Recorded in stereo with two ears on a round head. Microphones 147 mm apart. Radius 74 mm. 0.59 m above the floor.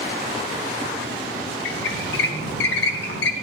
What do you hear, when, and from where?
1.6 s a squeak: 70° left (ahead or behind), 1.1 m